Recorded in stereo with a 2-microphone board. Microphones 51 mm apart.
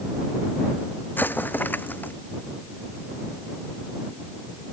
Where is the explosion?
35° left (ahead or behind).